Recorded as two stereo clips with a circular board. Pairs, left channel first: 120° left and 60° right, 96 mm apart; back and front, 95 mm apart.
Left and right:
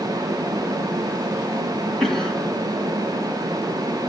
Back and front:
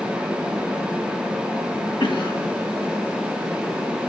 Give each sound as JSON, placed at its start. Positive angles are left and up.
{"t": 2.0, "sound": "a cough", "azimuth_deg": -155, "distance_m": 3.0}